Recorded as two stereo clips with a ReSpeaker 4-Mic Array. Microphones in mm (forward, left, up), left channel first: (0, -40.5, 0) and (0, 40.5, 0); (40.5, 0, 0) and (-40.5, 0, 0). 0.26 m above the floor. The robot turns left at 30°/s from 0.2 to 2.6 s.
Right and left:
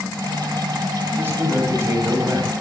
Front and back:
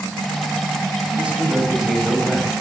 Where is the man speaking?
120° left, 1.1 m; by 2.5 s 80° left, 1.1 m.